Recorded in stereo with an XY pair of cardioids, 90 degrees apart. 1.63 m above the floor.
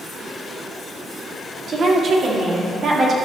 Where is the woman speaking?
50° right, 1.7 m.